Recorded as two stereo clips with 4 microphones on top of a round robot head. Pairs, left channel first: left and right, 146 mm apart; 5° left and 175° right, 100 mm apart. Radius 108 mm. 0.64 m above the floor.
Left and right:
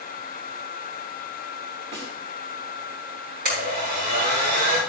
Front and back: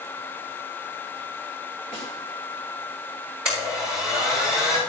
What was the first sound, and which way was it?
A snare drum, 40° right.